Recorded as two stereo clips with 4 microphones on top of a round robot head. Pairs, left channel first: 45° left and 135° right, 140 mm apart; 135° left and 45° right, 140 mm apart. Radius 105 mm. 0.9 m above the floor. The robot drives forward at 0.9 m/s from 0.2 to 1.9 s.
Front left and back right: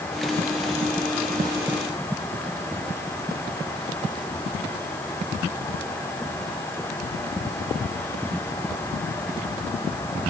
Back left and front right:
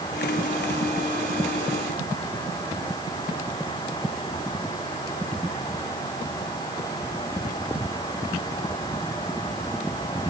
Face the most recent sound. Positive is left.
No sound to turn to.